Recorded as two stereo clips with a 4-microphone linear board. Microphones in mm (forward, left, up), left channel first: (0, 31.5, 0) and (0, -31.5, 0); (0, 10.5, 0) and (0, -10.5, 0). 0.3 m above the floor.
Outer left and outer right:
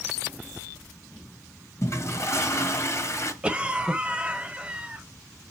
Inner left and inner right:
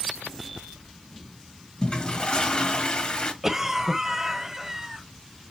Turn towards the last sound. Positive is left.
turn(degrees=-15)  # may be behind; listen again after turning